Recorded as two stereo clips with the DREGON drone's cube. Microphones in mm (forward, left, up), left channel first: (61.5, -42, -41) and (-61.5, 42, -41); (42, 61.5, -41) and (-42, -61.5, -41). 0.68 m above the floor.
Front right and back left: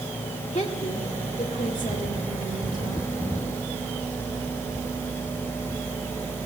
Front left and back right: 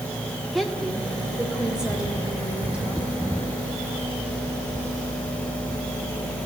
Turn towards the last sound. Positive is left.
turn(degrees=-45)